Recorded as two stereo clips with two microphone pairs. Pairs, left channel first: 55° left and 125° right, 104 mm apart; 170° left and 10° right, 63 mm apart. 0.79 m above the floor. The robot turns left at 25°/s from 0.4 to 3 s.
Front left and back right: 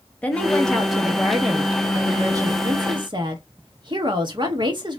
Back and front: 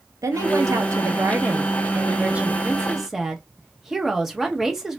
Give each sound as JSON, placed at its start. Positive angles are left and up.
{"t": 0.2, "sound": "a woman speaking", "azimuth_deg": -20, "distance_m": 0.9}